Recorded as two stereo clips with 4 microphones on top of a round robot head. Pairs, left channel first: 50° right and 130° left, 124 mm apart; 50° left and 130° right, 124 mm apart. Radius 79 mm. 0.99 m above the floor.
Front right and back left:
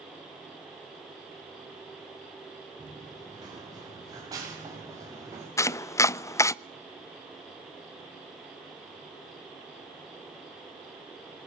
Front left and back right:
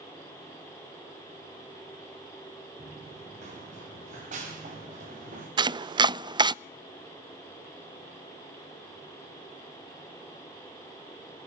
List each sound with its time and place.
2.8 s running footsteps: 170° right, 9 m; by 5.5 s 160° right, 9 m
5.6 s chopping: 105° right, 0.5 m